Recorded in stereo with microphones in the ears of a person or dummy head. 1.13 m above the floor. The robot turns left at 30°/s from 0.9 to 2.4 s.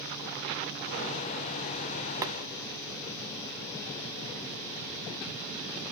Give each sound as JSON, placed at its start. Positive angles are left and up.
{"t": 2.2, "sound": "boiling", "side_deg": -20, "distance_m": 0.9}